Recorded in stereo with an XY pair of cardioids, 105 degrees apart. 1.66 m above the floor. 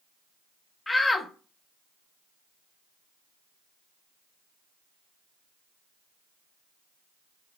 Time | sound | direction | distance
0.9 | a shout | 20° left | 0.6 m